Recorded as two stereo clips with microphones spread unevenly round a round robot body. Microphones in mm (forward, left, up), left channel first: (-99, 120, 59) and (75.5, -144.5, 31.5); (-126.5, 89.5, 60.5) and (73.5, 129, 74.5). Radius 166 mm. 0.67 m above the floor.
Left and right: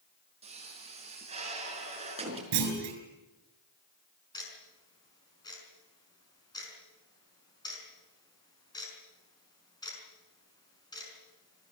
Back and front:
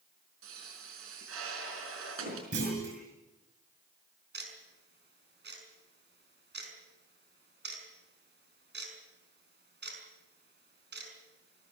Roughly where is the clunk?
Ahead right.